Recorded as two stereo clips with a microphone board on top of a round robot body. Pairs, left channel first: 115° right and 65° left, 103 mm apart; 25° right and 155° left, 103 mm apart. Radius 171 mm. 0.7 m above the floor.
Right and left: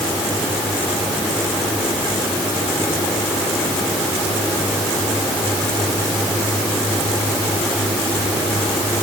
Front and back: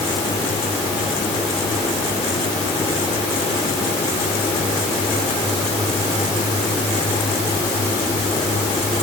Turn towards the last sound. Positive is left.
No sound to turn to.